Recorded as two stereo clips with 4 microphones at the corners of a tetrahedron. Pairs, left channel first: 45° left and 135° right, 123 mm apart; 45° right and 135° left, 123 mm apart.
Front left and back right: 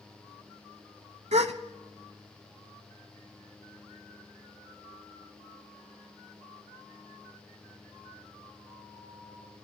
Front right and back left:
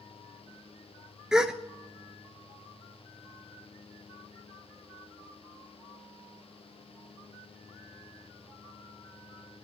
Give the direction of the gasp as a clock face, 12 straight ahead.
5 o'clock.